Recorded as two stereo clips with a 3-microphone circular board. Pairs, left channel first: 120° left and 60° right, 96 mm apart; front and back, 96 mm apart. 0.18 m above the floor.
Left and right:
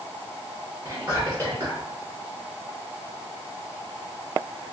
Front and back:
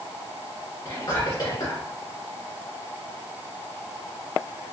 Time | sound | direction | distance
0.8 | whispering | 15° right | 2.0 m